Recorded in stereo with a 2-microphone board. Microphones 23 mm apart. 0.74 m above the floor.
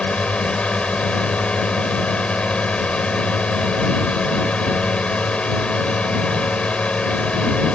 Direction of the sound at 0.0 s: 70° left (ahead or behind).